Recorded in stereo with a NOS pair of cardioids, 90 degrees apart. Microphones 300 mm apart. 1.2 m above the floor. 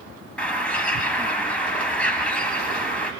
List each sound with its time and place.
0.4 s a bird: 5° left, 3.5 m